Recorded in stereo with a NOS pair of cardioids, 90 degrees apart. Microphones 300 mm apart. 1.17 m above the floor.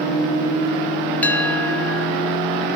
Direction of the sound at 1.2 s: 5° left.